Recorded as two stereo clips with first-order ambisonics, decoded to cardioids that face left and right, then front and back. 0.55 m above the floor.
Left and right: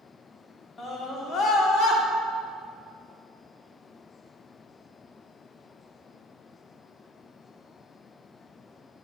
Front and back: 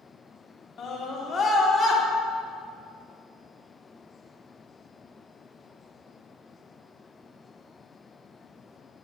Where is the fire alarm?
I don't hear a fire alarm.